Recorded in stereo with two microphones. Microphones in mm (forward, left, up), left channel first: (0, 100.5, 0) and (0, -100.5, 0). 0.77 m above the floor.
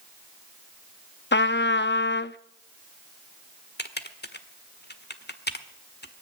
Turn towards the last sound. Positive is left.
turn(degrees=55)  # may be behind; listen again after turning